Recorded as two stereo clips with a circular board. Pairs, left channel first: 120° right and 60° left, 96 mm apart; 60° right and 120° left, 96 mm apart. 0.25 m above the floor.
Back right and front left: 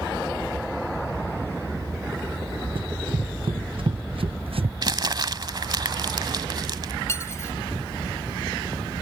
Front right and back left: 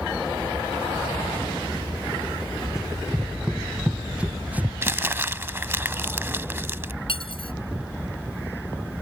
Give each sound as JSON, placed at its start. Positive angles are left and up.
{"t": 2.8, "sound": "running footsteps", "azimuth_deg": 35}
{"t": 4.8, "sound": "crumpling", "azimuth_deg": 65}
{"t": 7.1, "sound": "cutlery clinking", "azimuth_deg": -60}